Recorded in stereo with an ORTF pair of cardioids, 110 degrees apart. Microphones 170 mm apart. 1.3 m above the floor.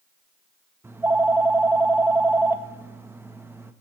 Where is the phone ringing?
15° right, 1.2 m.